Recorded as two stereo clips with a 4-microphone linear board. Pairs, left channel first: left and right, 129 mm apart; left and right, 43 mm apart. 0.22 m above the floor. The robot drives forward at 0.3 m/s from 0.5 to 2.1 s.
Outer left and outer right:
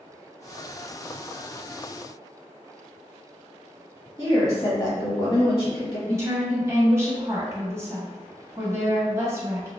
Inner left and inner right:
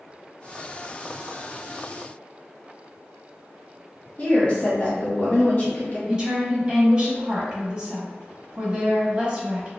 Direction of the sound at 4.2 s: 30° left (ahead or behind).